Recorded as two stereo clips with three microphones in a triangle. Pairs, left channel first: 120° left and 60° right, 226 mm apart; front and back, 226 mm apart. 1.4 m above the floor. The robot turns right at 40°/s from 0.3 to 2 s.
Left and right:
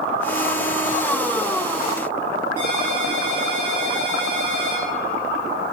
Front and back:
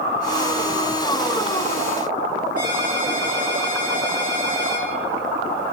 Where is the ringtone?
55° right, 3 m.